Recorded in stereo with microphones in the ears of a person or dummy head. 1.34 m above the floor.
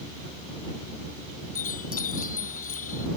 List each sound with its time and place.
1.6 s a chime: 50° left (ahead or behind)